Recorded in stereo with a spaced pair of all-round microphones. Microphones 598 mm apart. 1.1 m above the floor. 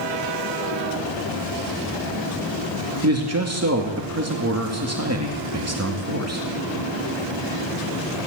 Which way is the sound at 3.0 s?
25° right (ahead or behind).